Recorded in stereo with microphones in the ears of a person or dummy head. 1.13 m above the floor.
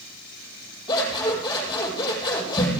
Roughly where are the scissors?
Left.